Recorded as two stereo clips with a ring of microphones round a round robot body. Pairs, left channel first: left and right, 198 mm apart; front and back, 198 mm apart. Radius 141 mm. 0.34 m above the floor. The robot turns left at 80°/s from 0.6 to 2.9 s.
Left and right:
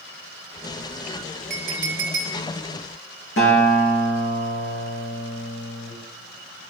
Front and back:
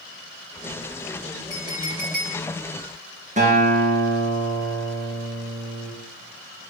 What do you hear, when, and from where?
1.5 s a clink: 75° right, 2 m; by 2.4 s 150° right, 2 m
3.4 s a guitar: 130° left, 3 m